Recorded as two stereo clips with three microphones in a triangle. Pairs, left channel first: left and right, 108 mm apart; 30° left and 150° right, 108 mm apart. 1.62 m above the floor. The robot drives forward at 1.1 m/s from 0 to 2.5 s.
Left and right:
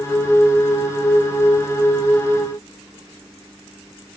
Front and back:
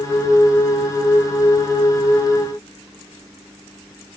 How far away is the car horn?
No car horn in this recording.